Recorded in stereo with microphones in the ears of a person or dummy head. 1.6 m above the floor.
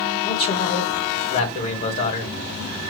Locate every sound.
0.2 s a man speaking: 40° left (ahead or behind), 1.7 m